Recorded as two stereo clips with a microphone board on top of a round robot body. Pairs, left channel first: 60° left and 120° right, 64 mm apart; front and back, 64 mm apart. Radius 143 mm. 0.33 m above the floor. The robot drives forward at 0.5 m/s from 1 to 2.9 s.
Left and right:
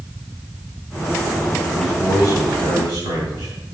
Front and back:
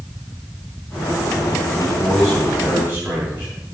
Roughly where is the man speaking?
Right.